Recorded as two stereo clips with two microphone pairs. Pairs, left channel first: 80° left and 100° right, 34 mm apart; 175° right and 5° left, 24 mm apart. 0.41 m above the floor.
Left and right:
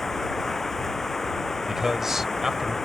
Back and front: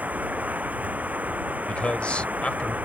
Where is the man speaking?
175° right.